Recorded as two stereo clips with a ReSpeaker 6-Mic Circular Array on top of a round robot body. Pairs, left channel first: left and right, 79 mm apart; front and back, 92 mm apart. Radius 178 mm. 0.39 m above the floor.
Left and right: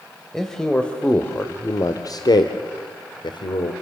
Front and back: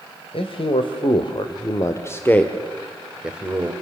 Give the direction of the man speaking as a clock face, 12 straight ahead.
12 o'clock.